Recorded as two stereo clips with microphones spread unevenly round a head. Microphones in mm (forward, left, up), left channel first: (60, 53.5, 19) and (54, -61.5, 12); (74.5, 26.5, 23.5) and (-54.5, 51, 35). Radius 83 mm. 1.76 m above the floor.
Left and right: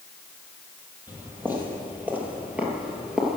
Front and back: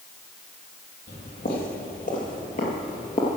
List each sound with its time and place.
1.1 s footsteps: 20° right, 3 m; by 3.4 s 5° right, 1.9 m